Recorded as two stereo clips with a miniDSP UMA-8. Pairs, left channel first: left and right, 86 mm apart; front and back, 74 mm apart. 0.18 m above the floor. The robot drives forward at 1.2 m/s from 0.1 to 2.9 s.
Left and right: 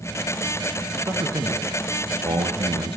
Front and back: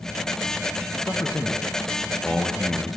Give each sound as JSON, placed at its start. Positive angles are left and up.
{"t": 1.1, "sound": "a man speaking", "azimuth_deg": -45, "distance_m": 3.0}